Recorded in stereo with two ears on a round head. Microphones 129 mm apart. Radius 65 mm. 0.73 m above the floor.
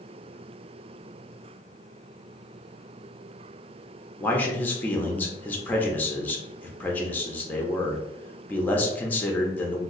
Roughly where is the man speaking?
Centre.